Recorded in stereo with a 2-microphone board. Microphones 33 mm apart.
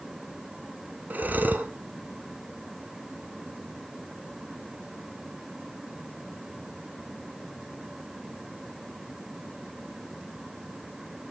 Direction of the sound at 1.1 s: 60° right (ahead or behind).